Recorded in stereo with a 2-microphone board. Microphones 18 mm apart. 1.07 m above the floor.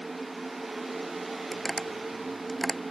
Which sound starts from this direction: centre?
Tapping, at 1.5 s.